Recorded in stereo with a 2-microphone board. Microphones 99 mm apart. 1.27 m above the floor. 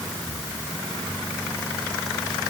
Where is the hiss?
No hiss in this recording.